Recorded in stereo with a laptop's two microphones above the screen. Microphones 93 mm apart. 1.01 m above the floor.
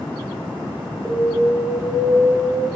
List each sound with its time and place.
1.1 s an alarm: 5° left (ahead or behind), 1.1 m